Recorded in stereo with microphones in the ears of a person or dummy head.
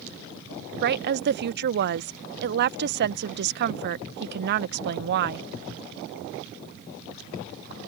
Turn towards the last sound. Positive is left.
turn(degrees=-50)  # may be behind; listen again after turning